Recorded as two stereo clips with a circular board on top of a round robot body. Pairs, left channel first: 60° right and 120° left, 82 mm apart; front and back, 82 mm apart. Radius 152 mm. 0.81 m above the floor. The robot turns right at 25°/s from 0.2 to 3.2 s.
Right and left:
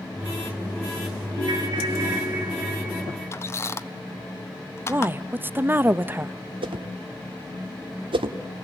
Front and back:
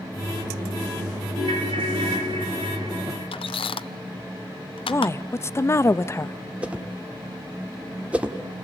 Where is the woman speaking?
55° left, 0.8 m.